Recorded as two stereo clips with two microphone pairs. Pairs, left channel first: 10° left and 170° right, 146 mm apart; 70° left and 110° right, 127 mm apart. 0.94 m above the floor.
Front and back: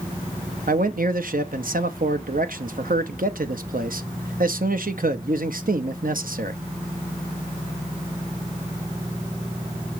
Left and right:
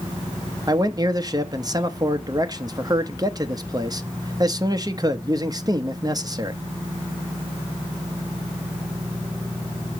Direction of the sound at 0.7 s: 165° right.